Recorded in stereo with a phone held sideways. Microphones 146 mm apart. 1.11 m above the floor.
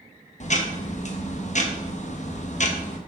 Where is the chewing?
I don't hear chewing.